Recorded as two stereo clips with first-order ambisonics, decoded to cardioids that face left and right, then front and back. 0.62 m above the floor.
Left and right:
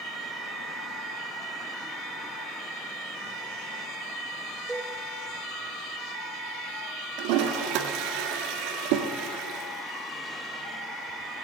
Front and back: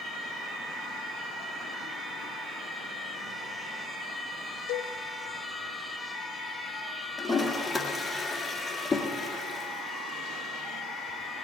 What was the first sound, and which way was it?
A cowbell, 5° right.